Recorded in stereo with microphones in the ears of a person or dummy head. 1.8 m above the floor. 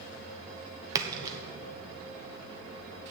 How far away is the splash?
About 0.9 m.